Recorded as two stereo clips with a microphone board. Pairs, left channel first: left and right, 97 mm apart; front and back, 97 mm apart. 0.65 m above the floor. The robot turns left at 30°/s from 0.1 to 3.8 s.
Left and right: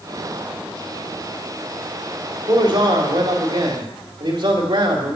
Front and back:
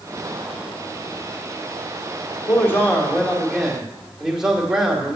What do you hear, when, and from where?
2.5 s a man speaking: 55° right, 2 m; by 5.2 s 95° right, 2 m